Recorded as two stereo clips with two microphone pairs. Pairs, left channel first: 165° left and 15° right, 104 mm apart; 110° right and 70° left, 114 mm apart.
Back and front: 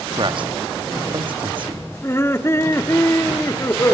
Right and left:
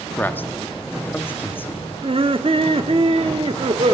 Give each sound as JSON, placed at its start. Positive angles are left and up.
{"t": 0.2, "sound": "a man speaking", "azimuth_deg": -40, "distance_m": 0.9}
{"t": 2.0, "sound": "laughter", "azimuth_deg": 105, "distance_m": 1.1}